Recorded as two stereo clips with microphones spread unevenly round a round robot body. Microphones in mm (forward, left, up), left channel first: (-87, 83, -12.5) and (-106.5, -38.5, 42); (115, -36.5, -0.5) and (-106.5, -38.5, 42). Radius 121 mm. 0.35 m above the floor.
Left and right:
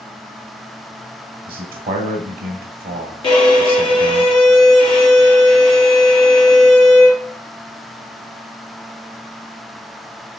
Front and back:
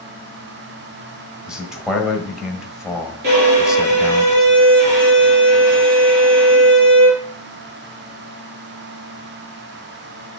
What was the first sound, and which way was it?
A man speaking, 85° right.